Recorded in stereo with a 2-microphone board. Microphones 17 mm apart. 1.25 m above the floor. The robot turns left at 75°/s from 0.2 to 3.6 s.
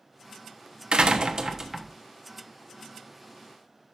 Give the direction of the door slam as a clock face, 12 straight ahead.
3 o'clock.